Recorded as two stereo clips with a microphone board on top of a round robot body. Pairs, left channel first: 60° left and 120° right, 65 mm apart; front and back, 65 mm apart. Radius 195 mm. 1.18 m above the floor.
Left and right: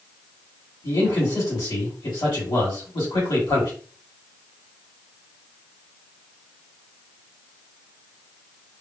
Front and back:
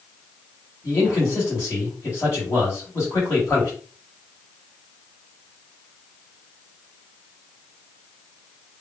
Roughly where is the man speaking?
Ahead left.